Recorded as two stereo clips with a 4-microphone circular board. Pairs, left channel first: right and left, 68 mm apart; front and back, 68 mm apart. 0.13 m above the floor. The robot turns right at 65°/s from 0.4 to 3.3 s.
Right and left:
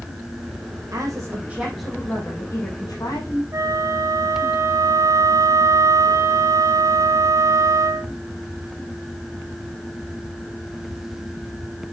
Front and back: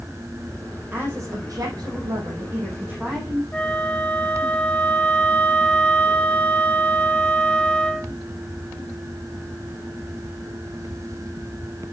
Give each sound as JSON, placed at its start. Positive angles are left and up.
{"t": 0.9, "sound": "a woman speaking", "azimuth_deg": 120, "distance_m": 5.0}
{"t": 3.5, "sound": "a flute", "azimuth_deg": 70, "distance_m": 0.8}